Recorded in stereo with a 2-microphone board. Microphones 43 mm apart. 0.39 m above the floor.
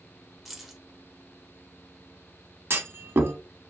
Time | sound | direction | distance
0.5 | keys jangling | 5° right (ahead or behind) | 0.7 m
2.7 | a clunk | 70° right (ahead or behind) | 0.5 m